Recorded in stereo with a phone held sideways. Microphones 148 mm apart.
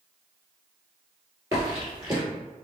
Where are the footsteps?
25° right (ahead or behind), 1.9 m.